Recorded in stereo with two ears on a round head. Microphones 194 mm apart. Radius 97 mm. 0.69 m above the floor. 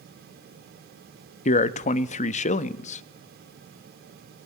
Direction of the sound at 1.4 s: 35° left (ahead or behind).